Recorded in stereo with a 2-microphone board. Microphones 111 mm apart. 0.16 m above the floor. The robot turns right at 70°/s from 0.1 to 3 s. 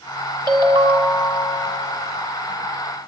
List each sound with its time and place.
0.5 s a ringtone: 130° right, 1.0 m; by 1.6 s 50° right, 1.0 m